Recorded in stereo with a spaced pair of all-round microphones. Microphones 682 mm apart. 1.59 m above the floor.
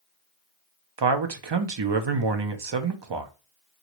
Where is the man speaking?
45° right (ahead or behind), 0.5 m.